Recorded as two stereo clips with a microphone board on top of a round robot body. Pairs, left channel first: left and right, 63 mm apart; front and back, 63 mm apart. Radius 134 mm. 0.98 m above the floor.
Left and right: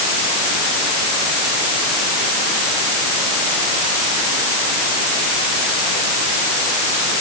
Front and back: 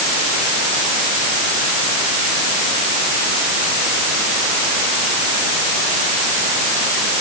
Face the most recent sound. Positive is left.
No sound to turn to.